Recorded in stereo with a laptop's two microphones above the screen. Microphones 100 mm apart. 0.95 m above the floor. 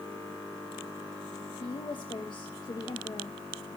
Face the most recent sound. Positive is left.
turn(degrees=50)  # may be behind; listen again after turning